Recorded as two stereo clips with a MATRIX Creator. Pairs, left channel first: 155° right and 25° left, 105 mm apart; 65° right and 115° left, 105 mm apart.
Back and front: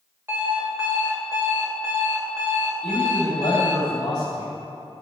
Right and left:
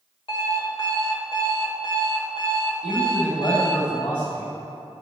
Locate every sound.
0.3 s an alarm clock: 45° right, 2 m
2.8 s a man speaking: 110° right, 3 m